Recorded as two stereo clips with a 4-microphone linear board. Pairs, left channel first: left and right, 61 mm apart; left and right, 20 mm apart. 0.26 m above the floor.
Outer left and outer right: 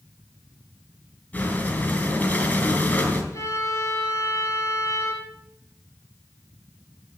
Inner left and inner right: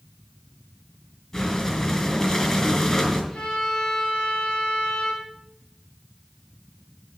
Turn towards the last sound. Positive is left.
turn(degrees=55)  # may be behind; listen again after turning